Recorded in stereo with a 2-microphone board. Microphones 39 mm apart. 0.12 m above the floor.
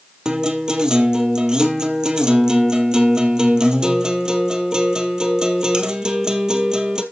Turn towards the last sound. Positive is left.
turn(degrees=-20)  # may be behind; listen again after turning